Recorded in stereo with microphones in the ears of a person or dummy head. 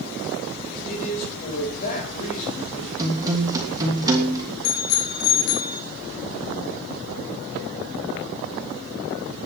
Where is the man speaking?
45° left (ahead or behind), 7 m.